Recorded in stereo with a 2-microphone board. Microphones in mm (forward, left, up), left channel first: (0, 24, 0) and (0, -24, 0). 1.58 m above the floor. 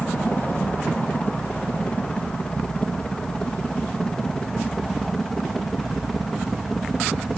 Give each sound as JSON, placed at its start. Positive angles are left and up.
{"t": 0.0, "sound": "a helicopter", "side_deg": 35}